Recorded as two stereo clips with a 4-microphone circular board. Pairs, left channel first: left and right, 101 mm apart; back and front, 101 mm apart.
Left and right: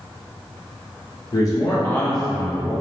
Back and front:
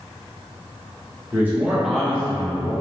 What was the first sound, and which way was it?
A man speaking, 60° left.